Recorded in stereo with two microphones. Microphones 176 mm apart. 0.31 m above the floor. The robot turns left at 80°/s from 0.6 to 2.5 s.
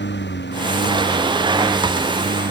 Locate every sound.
0.0 s a lawn mower: 80° left; by 2.5 s 70° right